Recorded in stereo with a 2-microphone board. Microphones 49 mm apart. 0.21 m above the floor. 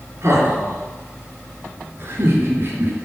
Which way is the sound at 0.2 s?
60° right (ahead or behind).